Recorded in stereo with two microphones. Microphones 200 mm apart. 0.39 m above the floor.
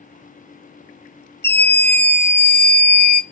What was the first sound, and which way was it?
A scream, 60° left (ahead or behind).